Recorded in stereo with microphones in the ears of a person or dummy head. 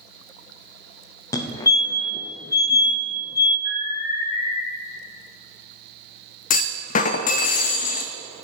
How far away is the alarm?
About 3.5 m.